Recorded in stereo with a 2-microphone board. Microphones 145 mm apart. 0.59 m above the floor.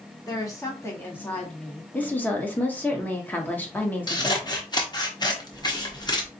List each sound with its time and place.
0.3 s a woman speaking: 25° left (ahead or behind), 1.2 m; by 1.8 s 5° left (ahead or behind), 1.4 m
1.9 s a woman speaking: 15° left (ahead or behind), 0.9 m
4.1 s scissors: 30° left (ahead or behind), 0.8 m